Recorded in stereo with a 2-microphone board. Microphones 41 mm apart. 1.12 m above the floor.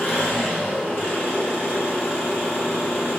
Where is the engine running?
65° left (ahead or behind), 0.9 m.